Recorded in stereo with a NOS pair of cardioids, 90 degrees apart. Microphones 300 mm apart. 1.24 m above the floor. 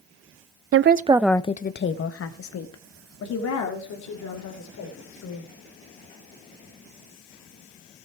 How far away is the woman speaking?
About 0.7 m.